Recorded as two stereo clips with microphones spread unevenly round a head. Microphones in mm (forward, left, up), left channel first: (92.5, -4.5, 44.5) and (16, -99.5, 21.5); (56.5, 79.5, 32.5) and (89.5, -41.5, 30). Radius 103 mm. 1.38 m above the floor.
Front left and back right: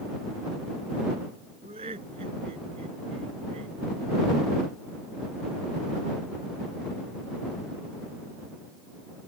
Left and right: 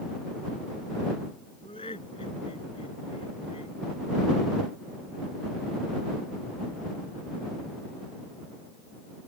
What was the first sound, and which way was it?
Laughter, 170° left.